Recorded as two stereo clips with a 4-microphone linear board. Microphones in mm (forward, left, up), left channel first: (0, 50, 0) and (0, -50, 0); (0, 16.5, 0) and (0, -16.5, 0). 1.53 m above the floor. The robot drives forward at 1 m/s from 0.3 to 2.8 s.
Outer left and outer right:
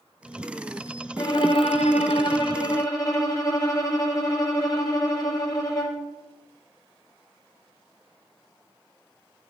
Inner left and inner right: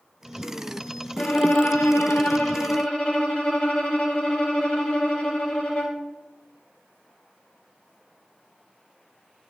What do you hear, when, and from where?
1.2 s a violin: 40° left (ahead or behind), 1.0 m; by 6.0 s 35° left (ahead or behind), 1.1 m